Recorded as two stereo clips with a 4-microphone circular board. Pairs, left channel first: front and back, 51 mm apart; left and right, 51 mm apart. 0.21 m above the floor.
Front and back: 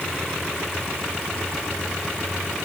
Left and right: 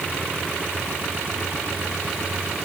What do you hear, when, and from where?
Only background noise.